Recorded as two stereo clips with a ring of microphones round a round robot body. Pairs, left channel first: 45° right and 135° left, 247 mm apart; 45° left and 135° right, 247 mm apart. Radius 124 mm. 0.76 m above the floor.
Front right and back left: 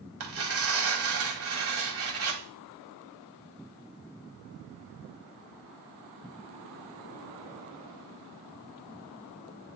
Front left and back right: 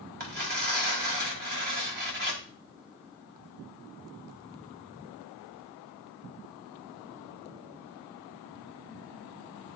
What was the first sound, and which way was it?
Tearing paper, 170° left.